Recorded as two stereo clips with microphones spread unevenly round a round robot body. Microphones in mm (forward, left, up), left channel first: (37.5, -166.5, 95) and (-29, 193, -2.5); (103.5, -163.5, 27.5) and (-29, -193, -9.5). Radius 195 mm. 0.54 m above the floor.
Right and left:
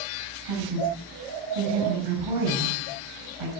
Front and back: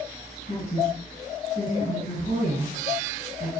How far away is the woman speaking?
About 5 m.